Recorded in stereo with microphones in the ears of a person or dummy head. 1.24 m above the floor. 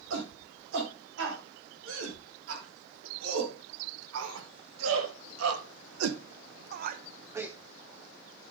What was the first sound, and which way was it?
A shout, 75° right (ahead or behind).